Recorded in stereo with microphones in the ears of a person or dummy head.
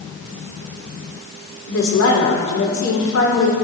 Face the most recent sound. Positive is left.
turn(degrees=85)